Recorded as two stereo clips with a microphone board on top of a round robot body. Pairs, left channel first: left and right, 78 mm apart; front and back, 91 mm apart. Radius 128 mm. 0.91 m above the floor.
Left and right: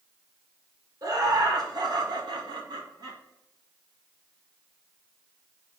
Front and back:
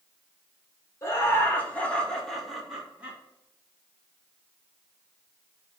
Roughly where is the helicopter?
No helicopter in this recording.